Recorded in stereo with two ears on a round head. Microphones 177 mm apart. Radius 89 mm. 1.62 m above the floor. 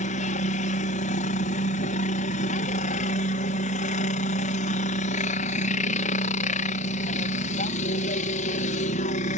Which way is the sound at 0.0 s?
40° left (ahead or behind).